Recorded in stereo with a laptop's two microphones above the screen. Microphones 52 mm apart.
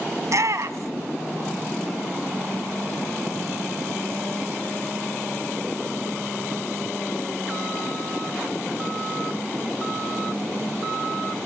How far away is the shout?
About 1.1 m.